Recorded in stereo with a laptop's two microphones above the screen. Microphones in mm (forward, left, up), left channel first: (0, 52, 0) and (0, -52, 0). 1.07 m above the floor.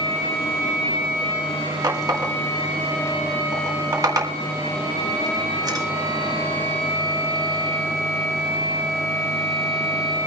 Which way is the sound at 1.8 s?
35° right (ahead or behind).